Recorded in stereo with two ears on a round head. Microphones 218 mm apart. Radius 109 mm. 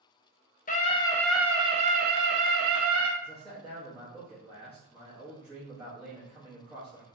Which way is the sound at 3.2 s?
5° right (ahead or behind).